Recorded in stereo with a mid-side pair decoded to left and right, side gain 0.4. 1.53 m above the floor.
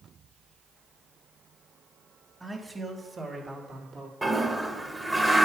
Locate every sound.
2.4 s a man speaking: 15° right, 3 m; by 4.1 s 60° right, 3 m
4.2 s a toilet flushing: 20° right, 1.4 m